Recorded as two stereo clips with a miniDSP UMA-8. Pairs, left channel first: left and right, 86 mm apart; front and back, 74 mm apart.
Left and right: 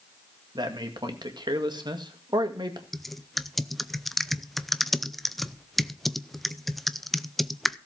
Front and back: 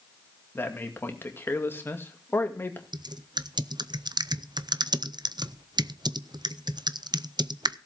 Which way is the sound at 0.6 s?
60° right.